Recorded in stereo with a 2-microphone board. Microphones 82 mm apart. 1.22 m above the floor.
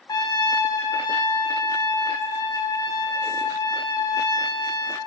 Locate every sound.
0.1 s a trumpet: 55° left (ahead or behind), 5 m